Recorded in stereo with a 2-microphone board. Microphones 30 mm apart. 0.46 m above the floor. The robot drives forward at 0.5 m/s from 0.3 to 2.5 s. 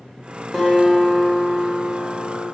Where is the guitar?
15° left (ahead or behind), 1.7 m; by 2.5 s 10° left (ahead or behind), 2.5 m.